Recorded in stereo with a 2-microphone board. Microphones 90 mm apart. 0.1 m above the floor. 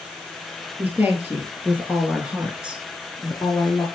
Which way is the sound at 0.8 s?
20° right (ahead or behind).